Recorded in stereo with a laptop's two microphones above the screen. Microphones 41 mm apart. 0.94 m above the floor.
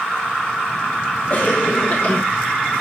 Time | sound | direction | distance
1.3 | a cough | 40° left (ahead or behind) | 1.3 m